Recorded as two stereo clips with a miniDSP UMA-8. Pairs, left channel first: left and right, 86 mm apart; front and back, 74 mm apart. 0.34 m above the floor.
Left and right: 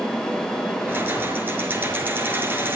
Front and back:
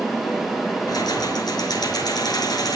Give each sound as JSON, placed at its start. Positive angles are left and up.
{"t": 0.9, "sound": "keys jangling", "azimuth_deg": -25, "distance_m": 4.5}